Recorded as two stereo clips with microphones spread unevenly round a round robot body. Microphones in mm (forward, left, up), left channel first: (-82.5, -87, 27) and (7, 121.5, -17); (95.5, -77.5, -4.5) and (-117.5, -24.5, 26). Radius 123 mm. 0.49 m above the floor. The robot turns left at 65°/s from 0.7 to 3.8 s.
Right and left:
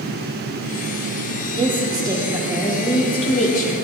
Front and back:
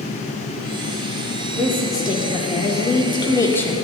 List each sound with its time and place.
1.6 s a woman speaking: 60° left, 0.8 m; by 3.8 s 85° right, 0.8 m